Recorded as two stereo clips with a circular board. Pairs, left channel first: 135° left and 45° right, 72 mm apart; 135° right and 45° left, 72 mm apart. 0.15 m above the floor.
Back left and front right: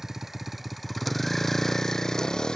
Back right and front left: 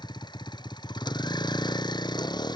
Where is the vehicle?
130° right; by 2.6 s 145° right.